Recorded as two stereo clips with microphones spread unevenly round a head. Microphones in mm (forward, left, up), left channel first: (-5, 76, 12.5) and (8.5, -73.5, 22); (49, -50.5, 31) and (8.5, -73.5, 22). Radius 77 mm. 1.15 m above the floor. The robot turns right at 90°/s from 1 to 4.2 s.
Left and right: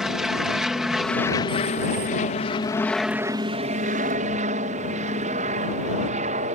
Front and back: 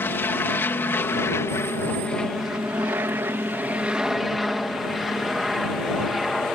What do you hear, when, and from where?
0.0 s an aircraft: 5° left; by 6.5 s 65° right